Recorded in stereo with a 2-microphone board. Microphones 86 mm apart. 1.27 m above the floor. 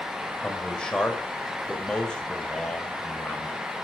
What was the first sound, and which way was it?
A man speaking, 10° left (ahead or behind).